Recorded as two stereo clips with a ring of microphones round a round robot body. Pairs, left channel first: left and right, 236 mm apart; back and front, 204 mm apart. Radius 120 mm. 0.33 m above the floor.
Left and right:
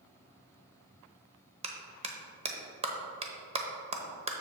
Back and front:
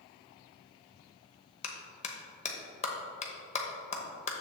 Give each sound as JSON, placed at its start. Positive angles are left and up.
{"t": 1.6, "sound": "a clap", "azimuth_deg": -140, "distance_m": 1.0}